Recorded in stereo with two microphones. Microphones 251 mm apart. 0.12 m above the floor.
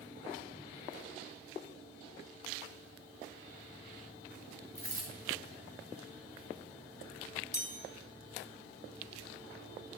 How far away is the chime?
About 1.8 m.